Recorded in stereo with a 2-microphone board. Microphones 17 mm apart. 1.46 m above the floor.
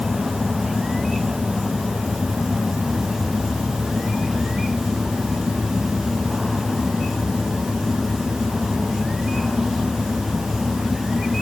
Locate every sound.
Only background noise.